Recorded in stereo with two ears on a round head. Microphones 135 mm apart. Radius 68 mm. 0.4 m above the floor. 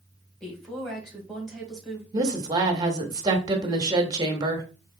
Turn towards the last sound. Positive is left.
turn(degrees=-25)  # may be behind; listen again after turning